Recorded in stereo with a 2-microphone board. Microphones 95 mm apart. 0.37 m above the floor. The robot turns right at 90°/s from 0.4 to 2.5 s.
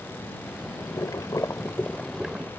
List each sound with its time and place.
0.8 s boiling: 55° left; by 2.5 s 150° right